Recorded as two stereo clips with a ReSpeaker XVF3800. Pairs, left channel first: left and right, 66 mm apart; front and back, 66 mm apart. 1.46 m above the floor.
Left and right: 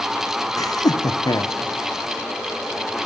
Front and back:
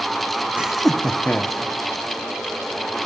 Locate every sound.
0.6 s laughter: 105° left, 0.7 m; by 1.6 s 65° left, 1.6 m